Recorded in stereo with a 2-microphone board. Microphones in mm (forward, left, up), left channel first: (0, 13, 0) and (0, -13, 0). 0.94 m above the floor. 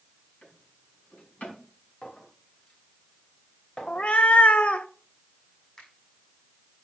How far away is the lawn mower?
No lawn mower in this recording.